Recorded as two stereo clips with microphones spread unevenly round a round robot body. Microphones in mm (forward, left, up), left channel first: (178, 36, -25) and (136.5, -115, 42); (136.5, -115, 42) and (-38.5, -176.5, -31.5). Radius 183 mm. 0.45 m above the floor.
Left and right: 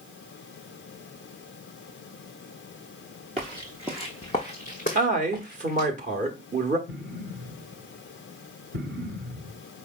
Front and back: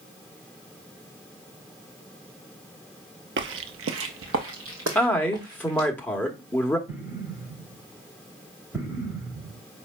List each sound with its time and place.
3.4 s footsteps: 130° right, 0.7 m; by 5.9 s 130° left, 1.6 m
5.0 s a man speaking: 110° right, 0.9 m
6.9 s an explosion: 110° right, 1.2 m